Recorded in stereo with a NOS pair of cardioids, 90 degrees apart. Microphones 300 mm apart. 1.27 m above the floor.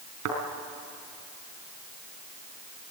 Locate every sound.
0.2 s a thud: 65° right, 4 m